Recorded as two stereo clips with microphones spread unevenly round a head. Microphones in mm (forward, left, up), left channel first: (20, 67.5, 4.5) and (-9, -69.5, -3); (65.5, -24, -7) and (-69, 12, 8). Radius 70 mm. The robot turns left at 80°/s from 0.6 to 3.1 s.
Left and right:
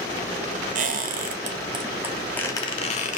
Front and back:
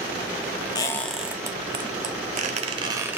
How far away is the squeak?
About 0.7 m.